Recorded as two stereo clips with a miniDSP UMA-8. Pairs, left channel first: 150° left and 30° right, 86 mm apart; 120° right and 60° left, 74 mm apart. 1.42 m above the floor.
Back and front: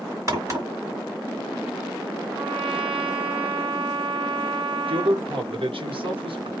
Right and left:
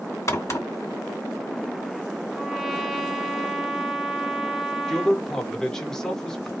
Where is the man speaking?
35° right, 1.1 m.